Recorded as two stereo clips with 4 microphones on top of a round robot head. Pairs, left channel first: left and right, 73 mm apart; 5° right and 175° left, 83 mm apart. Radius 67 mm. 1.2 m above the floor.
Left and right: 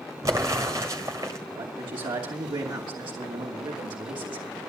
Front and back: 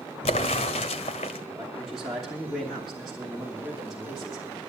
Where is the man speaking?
95° right, 2.5 m.